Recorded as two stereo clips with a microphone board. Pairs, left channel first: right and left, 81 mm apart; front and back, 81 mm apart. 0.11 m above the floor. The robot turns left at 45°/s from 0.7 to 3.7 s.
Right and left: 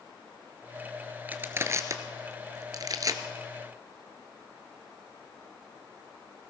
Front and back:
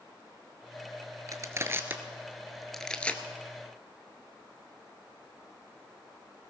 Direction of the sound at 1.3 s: 150° left.